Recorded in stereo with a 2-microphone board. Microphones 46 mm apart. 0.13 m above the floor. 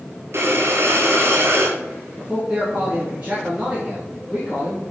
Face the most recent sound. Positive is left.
turn(degrees=-25)  # may be behind; listen again after turning